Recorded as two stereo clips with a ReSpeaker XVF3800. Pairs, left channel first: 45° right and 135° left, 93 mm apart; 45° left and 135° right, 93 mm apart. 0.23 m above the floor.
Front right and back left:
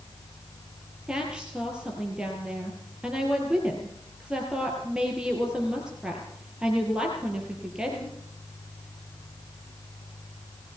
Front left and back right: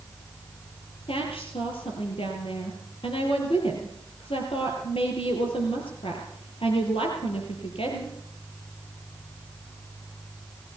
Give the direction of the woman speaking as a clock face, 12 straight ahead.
10 o'clock.